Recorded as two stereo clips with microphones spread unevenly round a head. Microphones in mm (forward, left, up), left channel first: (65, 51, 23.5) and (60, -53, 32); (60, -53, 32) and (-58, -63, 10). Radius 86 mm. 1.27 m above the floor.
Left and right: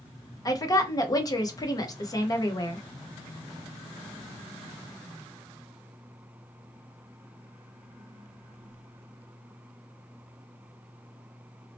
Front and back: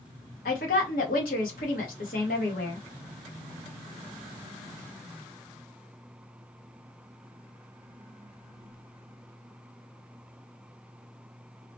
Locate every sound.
0.5 s a woman speaking: 30° left, 0.9 m